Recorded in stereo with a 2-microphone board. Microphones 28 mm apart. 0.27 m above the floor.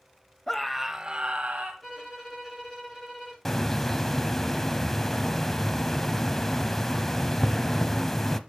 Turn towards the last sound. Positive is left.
turn(degrees=10)  # may be behind; listen again after turning